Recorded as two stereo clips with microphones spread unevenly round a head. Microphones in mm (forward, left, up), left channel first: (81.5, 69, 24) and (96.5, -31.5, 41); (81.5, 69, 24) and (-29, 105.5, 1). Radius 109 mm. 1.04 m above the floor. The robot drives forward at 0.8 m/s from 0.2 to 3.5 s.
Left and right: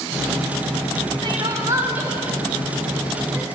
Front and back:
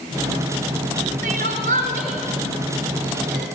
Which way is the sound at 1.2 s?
150° right.